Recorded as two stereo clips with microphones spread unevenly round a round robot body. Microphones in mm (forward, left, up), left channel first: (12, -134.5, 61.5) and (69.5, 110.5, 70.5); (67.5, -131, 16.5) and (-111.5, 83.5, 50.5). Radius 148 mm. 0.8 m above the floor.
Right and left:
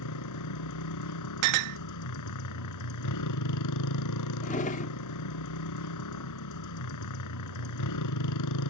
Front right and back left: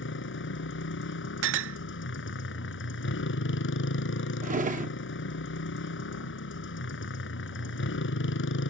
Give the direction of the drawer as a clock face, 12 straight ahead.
6 o'clock.